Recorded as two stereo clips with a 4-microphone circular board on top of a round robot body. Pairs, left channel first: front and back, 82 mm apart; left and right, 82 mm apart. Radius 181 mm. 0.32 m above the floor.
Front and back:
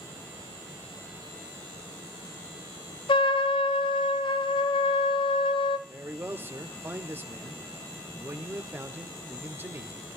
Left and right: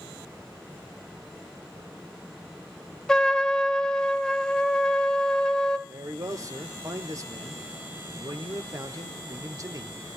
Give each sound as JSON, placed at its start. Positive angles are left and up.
{"t": 3.1, "sound": "a trumpet", "azimuth_deg": 5, "distance_m": 0.6}
{"t": 5.9, "sound": "a man speaking", "azimuth_deg": -125, "distance_m": 1.6}